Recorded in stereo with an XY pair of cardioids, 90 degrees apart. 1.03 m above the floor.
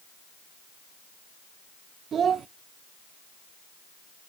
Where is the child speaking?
60° right, 0.5 m.